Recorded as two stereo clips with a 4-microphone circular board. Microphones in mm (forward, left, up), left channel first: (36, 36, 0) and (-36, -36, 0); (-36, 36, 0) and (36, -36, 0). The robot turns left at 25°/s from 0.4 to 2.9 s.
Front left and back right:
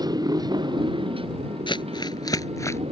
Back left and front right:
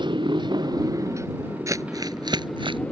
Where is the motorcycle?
85° right; by 2.9 s 150° right.